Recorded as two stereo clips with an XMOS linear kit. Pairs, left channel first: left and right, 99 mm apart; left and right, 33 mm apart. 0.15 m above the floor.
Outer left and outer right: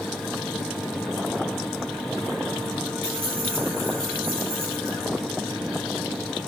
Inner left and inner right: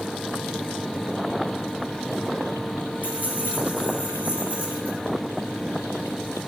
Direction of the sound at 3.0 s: 70° right (ahead or behind).